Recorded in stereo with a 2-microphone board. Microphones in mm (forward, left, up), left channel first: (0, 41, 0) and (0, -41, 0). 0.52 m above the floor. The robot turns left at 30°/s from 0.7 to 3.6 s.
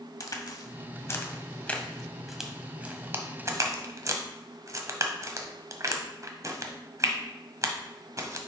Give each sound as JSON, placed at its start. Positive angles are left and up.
{"t": 0.2, "sound": "a crack", "side_deg": 45, "distance_m": 0.9}